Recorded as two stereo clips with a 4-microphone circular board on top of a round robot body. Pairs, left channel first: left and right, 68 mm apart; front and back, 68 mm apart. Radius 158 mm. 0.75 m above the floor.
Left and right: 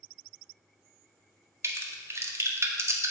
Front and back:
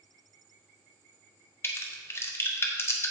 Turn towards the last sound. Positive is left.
turn(degrees=-50)